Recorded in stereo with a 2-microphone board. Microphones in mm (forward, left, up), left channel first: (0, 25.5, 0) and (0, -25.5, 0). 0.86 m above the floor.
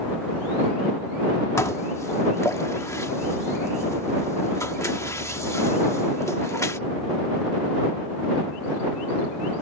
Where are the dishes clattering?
75° left (ahead or behind).